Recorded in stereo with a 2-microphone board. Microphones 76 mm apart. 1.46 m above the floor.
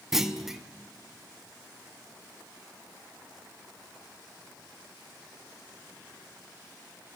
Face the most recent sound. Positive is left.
turn(degrees=-5)  # may be behind; listen again after turning